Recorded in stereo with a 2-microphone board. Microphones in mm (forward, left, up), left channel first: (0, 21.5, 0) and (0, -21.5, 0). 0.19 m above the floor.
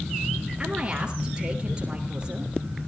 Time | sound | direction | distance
0.6 | a woman speaking | 25° right (ahead or behind) | 4 m